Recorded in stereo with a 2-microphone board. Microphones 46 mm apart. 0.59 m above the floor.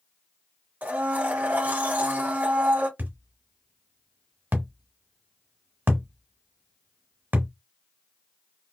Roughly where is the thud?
Right.